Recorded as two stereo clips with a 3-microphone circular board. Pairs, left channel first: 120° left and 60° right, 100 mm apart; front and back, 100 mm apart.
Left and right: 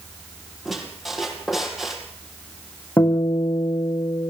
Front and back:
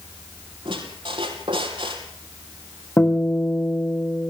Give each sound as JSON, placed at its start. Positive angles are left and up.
{"t": 0.7, "sound": "a squeak", "azimuth_deg": -145, "distance_m": 3.5}
{"t": 3.0, "sound": "a guitar", "azimuth_deg": 55, "distance_m": 5.0}